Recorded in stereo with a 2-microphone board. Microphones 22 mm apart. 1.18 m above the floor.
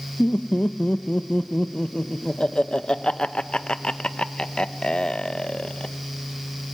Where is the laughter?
45° left (ahead or behind), 1.0 m.